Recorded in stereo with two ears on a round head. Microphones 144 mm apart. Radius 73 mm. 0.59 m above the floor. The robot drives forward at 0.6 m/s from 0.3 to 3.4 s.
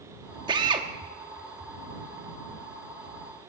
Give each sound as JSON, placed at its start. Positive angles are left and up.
{"t": 0.5, "sound": "a drill", "side_deg": -30, "distance_m": 1.1}